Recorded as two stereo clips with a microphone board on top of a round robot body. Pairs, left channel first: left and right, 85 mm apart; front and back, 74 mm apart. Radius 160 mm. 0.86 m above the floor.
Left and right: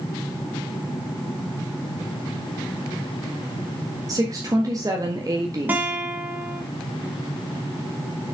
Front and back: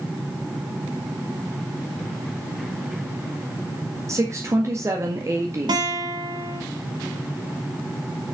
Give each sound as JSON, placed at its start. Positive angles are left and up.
{"t": 4.1, "sound": "a woman speaking", "azimuth_deg": -135, "distance_m": 1.8}
{"t": 5.7, "sound": "a guitar", "azimuth_deg": -160, "distance_m": 1.6}